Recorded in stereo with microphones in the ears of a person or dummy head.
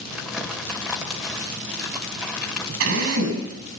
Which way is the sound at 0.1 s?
5° right (ahead or behind).